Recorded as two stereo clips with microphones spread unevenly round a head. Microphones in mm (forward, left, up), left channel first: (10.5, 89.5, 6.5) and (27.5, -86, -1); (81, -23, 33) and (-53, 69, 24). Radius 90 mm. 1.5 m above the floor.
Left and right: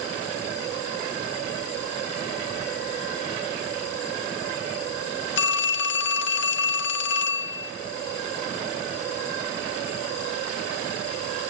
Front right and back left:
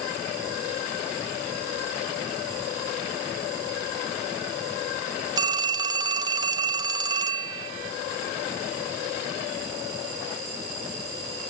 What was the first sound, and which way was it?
A phone ringing, 80° left.